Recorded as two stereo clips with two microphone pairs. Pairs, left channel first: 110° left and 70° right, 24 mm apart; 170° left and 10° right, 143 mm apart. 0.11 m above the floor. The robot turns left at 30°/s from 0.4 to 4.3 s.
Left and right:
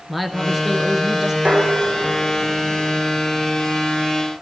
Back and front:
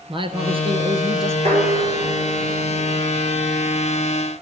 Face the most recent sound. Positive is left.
turn(degrees=-125)